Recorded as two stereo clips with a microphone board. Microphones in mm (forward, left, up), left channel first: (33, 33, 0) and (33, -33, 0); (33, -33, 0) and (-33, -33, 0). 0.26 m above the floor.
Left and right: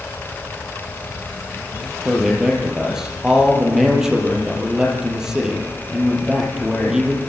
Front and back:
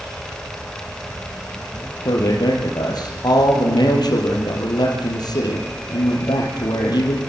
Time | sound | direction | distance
2.0 | a man speaking | 5° right | 6 m